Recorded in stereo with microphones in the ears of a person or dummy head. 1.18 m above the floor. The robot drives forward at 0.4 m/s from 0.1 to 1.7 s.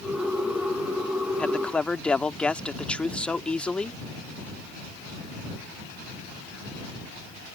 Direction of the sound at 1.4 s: 10° left (ahead or behind).